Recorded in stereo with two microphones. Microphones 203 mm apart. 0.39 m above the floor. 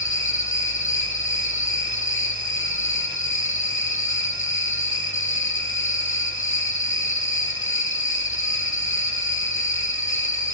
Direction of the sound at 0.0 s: 70° left (ahead or behind).